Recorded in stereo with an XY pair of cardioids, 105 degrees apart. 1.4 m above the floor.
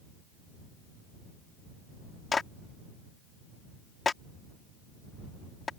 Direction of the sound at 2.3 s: 30° left.